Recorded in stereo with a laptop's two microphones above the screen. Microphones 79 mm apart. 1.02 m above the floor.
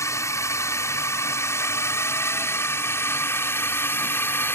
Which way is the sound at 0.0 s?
40° left (ahead or behind).